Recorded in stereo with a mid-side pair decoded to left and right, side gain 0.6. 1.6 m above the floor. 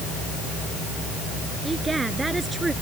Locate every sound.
1.6 s a woman speaking: 15° right